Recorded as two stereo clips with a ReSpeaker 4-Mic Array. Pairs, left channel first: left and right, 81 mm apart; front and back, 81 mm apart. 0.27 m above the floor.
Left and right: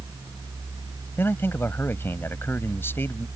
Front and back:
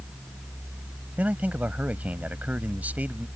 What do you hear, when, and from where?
1.2 s a man speaking: 125° left